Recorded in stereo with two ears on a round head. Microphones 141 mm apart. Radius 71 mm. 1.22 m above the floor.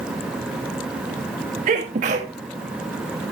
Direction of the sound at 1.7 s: 50° right (ahead or behind).